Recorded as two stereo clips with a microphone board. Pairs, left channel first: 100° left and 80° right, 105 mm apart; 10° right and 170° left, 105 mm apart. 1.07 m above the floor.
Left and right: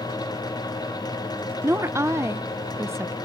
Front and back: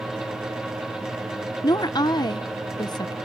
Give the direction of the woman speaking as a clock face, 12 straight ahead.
1 o'clock.